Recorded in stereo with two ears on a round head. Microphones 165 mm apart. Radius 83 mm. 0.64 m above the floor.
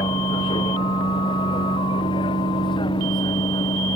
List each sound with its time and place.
0.0 s a vehicle: 25° left (ahead or behind)